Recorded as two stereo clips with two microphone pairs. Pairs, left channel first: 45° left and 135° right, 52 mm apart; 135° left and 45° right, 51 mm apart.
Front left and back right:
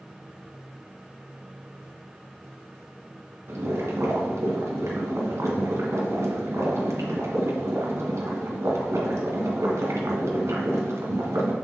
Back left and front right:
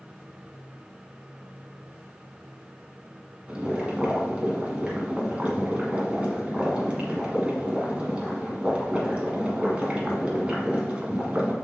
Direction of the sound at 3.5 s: 110° right.